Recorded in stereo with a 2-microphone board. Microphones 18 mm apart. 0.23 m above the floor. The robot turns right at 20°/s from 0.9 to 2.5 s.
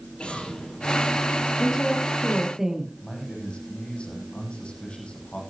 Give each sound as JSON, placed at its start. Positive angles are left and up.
{"t": 0.2, "sound": "an explosion", "side_deg": 80, "distance_m": 5.5}
{"t": 1.6, "sound": "a woman speaking", "side_deg": -15, "distance_m": 6.0}
{"t": 3.0, "sound": "a man speaking", "side_deg": 80, "distance_m": 7.5}